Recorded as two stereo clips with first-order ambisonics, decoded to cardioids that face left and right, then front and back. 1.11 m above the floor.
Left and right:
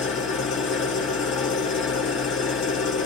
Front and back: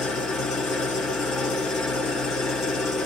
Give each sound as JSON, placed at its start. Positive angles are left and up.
{"t": 0.0, "sound": "an engine running", "azimuth_deg": 50, "distance_m": 1.5}